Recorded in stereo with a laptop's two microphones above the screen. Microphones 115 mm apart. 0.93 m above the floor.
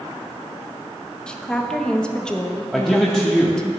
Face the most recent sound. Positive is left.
turn(degrees=5)  # may be behind; listen again after turning